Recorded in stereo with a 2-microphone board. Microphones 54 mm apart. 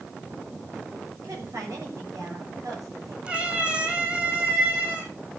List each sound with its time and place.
1.1 s a woman speaking: 75° right (ahead or behind), 7 m
3.3 s a cat meowing: 25° right (ahead or behind), 4.5 m